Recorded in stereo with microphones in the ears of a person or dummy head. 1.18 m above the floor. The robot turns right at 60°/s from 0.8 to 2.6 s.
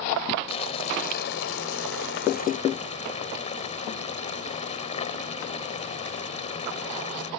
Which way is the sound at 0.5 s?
40° left.